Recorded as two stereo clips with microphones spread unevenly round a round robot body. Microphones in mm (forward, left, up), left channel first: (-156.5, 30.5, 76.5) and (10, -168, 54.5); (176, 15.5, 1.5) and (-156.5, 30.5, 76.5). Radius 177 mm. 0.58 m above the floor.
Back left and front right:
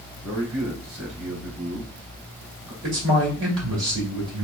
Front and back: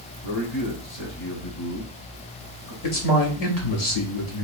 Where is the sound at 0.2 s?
15° right, 2.5 m.